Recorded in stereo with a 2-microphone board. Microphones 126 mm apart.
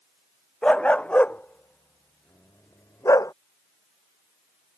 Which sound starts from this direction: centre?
A dog barking, at 0.6 s.